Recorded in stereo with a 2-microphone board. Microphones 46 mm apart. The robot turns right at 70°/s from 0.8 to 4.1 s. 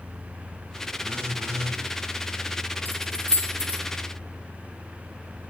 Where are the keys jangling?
45° left (ahead or behind), 5 m; by 3.8 s 65° left (ahead or behind), 5 m.